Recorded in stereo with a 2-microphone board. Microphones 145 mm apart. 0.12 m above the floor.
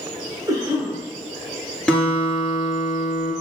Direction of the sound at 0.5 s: 25° right (ahead or behind).